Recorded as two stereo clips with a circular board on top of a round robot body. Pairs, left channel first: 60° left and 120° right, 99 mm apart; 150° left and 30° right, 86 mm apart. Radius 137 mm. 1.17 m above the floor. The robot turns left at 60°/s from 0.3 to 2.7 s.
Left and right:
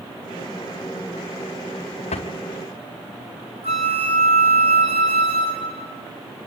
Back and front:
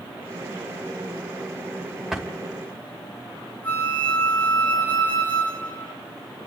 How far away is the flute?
About 5 m.